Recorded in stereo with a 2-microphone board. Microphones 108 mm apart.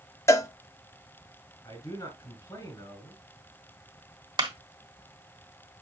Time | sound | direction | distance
0.3 | a cowbell | 25° left (ahead or behind) | 0.6 m
1.6 | a man speaking | 35° left (ahead or behind) | 4 m
4.4 | a clap | 45° right (ahead or behind) | 1.5 m